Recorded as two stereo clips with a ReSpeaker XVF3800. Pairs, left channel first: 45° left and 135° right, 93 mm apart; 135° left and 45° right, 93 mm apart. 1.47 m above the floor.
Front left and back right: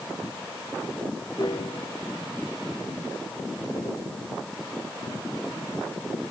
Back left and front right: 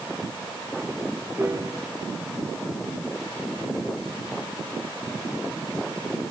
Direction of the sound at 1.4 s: 15° left.